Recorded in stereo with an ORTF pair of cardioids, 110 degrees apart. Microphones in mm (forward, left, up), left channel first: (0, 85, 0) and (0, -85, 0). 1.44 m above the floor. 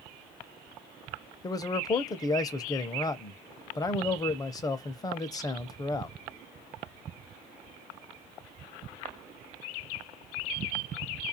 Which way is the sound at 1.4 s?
20° left.